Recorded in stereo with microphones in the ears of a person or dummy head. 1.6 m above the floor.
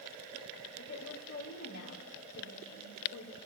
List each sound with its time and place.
0.8 s a woman speaking: 55° left (ahead or behind), 2.5 m